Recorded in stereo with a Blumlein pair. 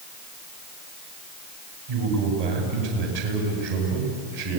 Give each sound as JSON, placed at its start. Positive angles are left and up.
{"t": 1.9, "sound": "a man speaking", "azimuth_deg": -55, "distance_m": 8.5}